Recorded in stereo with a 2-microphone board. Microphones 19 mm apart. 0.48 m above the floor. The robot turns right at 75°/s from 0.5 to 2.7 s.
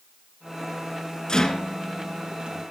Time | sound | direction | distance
1.3 | a rattle | 40° left (ahead or behind) | 2 m